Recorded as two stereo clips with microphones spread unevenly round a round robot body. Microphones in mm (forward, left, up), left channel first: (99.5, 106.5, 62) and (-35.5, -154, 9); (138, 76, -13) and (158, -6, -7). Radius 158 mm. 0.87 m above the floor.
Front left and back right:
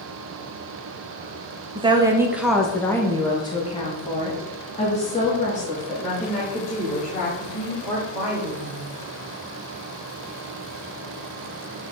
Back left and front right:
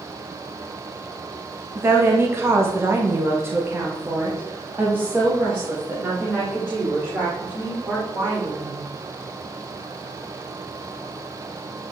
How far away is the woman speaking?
About 0.9 m.